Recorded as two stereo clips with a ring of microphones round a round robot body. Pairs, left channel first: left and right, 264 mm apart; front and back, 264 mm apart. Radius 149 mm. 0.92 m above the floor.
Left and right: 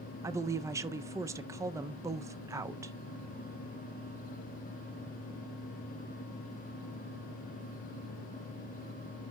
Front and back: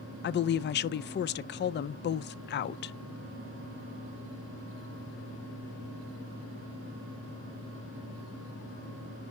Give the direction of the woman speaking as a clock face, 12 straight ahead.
1 o'clock.